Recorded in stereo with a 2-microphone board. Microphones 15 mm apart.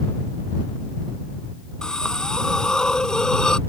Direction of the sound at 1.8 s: 50° left (ahead or behind).